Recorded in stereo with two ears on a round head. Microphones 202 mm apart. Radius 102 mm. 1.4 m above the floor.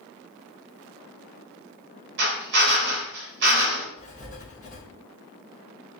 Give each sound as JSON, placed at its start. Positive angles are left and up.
{"t": 2.2, "sound": "a drill", "side_deg": -50, "distance_m": 3.5}
{"t": 4.0, "sound": "writing", "side_deg": 35, "distance_m": 1.8}